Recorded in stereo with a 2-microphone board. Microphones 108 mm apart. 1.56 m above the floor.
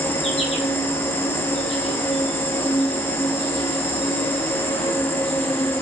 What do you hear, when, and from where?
0.0 s an insect: 60° left (ahead or behind), 3 m